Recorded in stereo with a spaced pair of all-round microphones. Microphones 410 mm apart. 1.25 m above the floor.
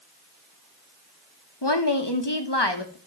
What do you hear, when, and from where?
1.6 s a woman speaking: 75° left (ahead or behind), 1.6 m